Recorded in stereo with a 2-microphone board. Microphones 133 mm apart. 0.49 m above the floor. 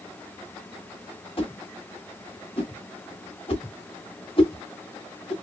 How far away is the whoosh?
About 1.3 m.